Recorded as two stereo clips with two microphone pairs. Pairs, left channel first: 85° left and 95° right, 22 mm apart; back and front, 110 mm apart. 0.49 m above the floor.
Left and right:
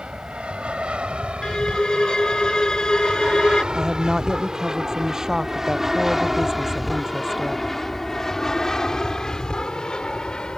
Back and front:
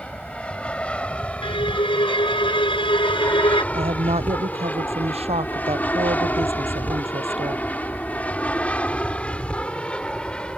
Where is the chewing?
I don't hear chewing.